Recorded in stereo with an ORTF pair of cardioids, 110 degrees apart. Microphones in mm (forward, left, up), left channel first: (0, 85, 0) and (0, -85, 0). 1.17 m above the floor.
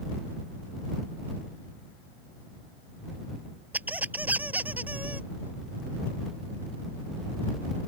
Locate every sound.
3.7 s a squeak: 10° right